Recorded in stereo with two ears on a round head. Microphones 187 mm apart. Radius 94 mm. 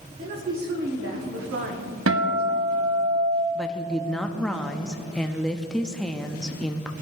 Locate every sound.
0.2 s a woman speaking: 40° right (ahead or behind), 1.9 m; by 3.0 s 35° right (ahead or behind), 1.5 m
2.1 s a guitar: 65° right (ahead or behind), 1.1 m
3.5 s a woman speaking: 5° left (ahead or behind), 0.5 m